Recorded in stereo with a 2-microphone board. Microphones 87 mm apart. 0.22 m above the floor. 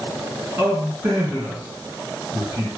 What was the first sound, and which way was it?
A man speaking, 30° right (ahead or behind).